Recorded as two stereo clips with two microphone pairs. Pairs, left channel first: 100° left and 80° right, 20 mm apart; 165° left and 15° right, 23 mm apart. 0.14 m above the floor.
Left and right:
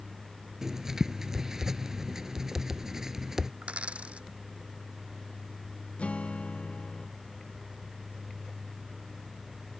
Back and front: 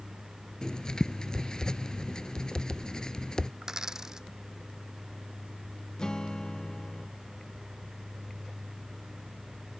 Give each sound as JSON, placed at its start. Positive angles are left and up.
{"t": 0.6, "sound": "writing", "azimuth_deg": -150}
{"t": 3.6, "sound": "a dropped coin", "azimuth_deg": -85}
{"t": 6.0, "sound": "a guitar", "azimuth_deg": 105}